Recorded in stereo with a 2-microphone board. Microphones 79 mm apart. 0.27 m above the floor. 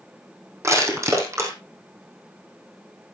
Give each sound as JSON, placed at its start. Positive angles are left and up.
{"t": 0.6, "sound": "crushing", "side_deg": -35, "distance_m": 3.5}